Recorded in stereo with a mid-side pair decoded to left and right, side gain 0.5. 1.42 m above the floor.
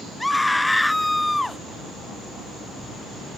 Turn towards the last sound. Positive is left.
turn(degrees=10)